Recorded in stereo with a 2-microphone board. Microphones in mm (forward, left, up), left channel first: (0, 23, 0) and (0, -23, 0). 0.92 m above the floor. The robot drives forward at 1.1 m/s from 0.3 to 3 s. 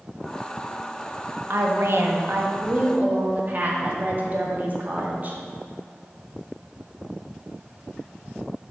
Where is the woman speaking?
60° right (ahead or behind), 1.4 m; by 5.4 s 40° right (ahead or behind), 1.9 m.